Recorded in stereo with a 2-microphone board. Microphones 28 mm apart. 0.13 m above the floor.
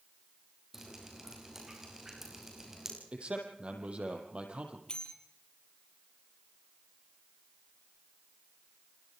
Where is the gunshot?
I don't hear a gunshot.